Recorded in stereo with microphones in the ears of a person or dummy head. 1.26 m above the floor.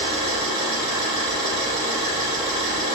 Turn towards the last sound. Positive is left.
turn(degrees=-25)  # may be behind; listen again after turning